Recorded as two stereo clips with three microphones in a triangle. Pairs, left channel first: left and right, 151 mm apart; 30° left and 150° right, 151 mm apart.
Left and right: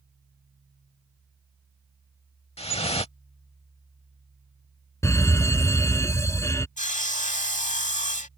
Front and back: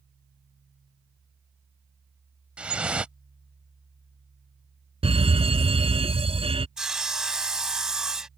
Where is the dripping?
130° left.